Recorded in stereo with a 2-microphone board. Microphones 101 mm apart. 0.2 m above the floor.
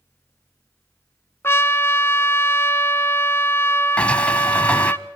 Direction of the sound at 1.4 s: 30° left (ahead or behind).